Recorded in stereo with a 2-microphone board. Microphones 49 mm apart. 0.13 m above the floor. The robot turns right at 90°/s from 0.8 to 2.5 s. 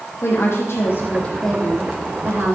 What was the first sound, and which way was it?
A woman speaking, 105° left.